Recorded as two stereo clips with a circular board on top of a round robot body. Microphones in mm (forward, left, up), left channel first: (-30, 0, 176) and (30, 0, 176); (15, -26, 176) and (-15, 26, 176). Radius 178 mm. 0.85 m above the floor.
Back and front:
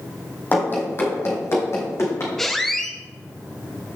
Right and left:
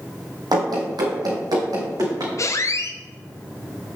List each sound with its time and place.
0.5 s running footsteps: 115° left, 2.0 m; by 2.3 s 140° left, 3.5 m
2.4 s a squeak: 95° right, 0.8 m